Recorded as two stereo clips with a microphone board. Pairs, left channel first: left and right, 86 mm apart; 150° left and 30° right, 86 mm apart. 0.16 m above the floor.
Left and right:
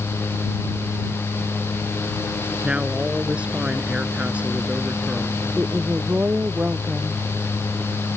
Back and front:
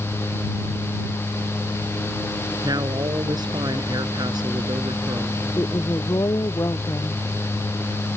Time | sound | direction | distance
2.6 | a woman speaking | 15° right | ?
5.6 | a woman speaking | 160° right | ?